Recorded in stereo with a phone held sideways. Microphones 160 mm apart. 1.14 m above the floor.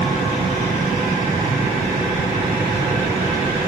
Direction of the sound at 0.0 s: 55° right (ahead or behind).